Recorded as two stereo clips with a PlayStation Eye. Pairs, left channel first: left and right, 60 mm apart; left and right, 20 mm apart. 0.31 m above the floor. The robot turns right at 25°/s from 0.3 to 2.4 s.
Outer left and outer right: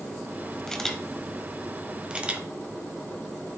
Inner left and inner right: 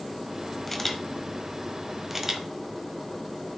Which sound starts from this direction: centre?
A camera shutter, at 0.7 s.